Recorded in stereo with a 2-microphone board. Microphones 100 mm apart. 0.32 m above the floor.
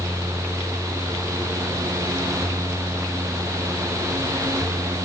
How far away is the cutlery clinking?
No cutlery clinking in this recording.